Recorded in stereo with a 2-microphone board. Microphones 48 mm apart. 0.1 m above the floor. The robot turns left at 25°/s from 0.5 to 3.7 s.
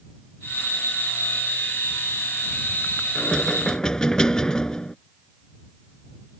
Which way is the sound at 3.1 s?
15° left (ahead or behind).